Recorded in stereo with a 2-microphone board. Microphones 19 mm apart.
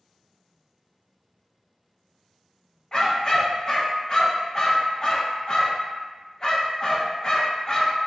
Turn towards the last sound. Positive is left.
turn(degrees=30)  # may be behind; listen again after turning